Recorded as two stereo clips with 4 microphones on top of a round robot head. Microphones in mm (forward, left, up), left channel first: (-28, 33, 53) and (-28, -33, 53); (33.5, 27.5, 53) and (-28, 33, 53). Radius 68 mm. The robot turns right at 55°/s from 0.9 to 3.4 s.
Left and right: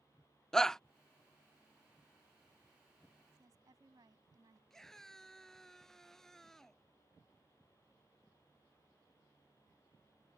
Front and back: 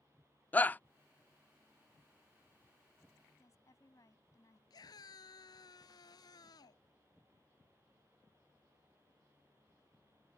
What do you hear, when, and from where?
0.5 s a shout: 20° left
3.4 s a woman speaking: 50° right
4.7 s a scream: 5° left